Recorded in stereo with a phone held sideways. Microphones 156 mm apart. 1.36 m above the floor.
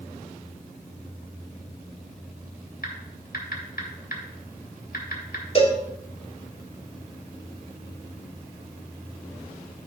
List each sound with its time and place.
2.8 s typing on a keyboard: 70° left (ahead or behind), 2.0 m
5.5 s a cowbell: 40° left (ahead or behind), 1.4 m